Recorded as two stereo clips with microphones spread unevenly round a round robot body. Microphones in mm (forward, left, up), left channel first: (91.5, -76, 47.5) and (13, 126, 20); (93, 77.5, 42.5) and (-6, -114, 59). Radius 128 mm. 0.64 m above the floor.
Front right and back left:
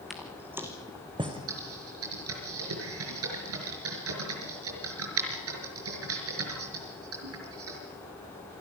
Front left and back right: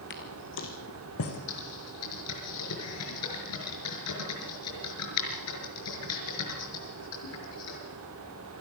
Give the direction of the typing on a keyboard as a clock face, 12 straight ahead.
9 o'clock.